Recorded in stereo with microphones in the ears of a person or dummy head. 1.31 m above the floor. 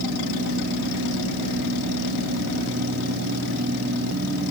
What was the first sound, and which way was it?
Only background noise.